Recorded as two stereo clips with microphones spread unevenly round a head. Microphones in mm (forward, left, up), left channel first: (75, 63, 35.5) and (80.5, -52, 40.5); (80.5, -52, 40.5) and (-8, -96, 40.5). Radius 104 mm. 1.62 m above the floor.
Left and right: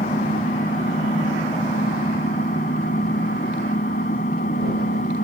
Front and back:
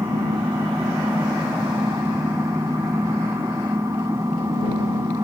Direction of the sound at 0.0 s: 130° left.